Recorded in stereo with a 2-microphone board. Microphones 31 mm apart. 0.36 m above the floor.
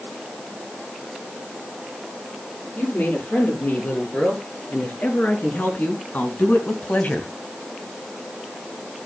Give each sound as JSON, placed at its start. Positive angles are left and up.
{"t": 2.8, "sound": "a woman speaking", "side_deg": 70, "distance_m": 8.0}